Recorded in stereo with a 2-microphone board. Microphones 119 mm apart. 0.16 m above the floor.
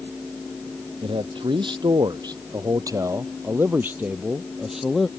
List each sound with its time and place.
1.0 s a man speaking: 50° right (ahead or behind); by 5.1 s centre (ahead or behind)